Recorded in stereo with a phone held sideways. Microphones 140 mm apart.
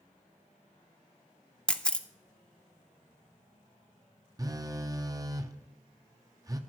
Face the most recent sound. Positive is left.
turn(degrees=-25)  # may be behind; listen again after turning